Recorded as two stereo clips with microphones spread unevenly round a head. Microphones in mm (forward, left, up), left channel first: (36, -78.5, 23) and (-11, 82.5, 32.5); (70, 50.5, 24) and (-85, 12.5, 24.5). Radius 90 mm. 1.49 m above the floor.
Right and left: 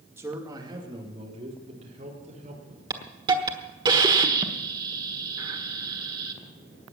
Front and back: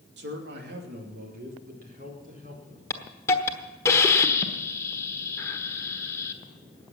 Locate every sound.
0.2 s a man speaking: 175° right, 2.5 m; by 2.8 s 155° left, 5 m
2.9 s a hiss: 70° left, 1.2 m